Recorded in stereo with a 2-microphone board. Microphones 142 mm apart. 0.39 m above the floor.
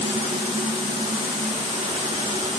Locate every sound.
Only background noise.